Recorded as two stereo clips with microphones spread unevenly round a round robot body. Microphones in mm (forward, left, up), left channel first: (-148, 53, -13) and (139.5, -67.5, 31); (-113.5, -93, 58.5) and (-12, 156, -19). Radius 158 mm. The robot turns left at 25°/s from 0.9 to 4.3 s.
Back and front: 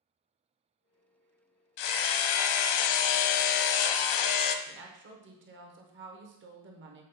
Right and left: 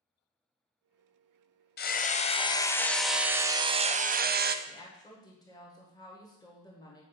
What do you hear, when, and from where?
1.8 s hammering: 170° right, 0.5 m; by 4.5 s 125° left, 0.5 m
4.7 s a woman speaking: 20° right, 1.0 m